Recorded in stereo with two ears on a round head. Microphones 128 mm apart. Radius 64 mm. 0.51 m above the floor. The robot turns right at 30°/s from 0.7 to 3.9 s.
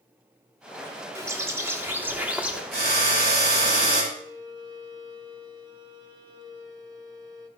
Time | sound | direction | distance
1.1 | a bird | 20° right (ahead or behind) | 1.3 m
2.7 | a drill | 95° right | 3.5 m
4.1 | a violin | 25° right (ahead or behind) | 1.7 m